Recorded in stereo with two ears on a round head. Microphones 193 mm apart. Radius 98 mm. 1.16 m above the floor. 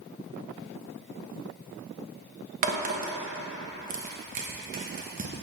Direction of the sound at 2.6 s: 40° right (ahead or behind).